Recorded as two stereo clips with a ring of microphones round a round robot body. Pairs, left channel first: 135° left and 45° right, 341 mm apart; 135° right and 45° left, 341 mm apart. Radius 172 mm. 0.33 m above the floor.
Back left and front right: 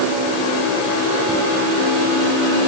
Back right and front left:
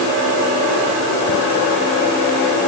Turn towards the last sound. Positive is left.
No sound to turn to.